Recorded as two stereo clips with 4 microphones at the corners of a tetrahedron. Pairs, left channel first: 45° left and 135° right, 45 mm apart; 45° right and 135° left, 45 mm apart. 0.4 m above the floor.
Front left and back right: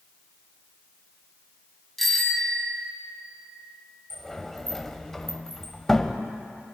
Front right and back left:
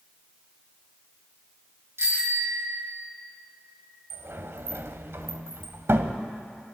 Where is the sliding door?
125° left, 0.9 m.